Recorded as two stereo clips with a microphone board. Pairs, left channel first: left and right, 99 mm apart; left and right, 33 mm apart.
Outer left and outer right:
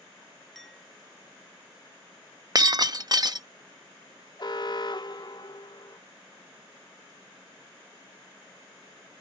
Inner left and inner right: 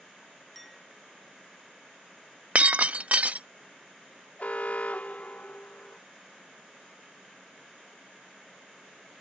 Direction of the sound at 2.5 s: 45° right (ahead or behind).